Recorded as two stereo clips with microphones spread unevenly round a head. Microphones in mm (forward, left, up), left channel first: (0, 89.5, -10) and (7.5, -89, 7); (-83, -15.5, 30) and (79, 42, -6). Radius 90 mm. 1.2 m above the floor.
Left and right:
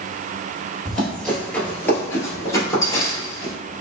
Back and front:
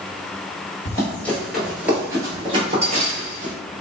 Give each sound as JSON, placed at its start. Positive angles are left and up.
{"t": 0.8, "sound": "running footsteps", "azimuth_deg": -170, "distance_m": 1.3}